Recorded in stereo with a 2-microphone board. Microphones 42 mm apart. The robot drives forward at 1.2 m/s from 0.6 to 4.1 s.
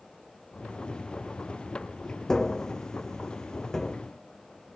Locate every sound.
2.3 s tapping: 10° left (ahead or behind)